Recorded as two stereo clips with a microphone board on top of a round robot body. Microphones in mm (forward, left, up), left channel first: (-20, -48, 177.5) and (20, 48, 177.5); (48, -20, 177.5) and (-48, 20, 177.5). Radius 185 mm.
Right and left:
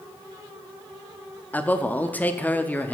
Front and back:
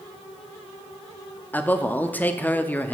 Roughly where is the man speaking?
Ahead right.